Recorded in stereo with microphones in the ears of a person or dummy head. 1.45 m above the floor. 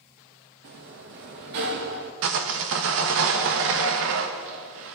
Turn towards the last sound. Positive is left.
turn(degrees=-60)  # may be behind; listen again after turning